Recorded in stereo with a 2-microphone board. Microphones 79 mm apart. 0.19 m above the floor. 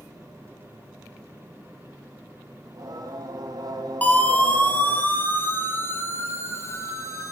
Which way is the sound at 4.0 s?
20° left (ahead or behind).